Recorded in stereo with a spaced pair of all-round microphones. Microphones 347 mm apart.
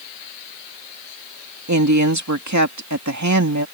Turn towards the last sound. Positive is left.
turn(degrees=-50)  # may be behind; listen again after turning